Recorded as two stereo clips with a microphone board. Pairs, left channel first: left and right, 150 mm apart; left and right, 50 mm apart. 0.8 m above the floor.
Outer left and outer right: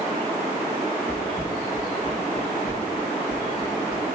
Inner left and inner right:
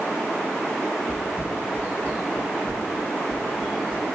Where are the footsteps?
35° left (ahead or behind), 1.1 m; by 4.0 s 55° left (ahead or behind), 3 m.